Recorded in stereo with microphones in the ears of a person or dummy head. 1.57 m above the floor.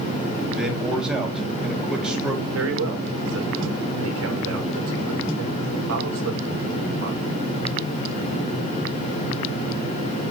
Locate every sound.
0.5 s a man speaking: centre (ahead or behind), 3 m
2.5 s a man speaking: 80° right, 2.5 m